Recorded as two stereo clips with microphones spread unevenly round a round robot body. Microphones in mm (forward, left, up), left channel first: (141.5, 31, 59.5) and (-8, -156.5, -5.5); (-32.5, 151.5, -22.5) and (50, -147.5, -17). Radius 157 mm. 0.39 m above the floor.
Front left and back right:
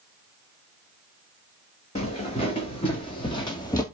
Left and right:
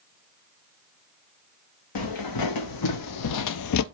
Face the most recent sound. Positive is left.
turn(degrees=115)